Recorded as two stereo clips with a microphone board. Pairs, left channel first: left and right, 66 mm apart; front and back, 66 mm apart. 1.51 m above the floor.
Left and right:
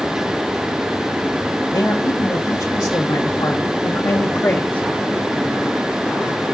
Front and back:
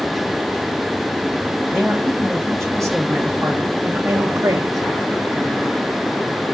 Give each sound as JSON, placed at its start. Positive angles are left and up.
{"t": 1.7, "sound": "a man speaking", "azimuth_deg": 80, "distance_m": 2.0}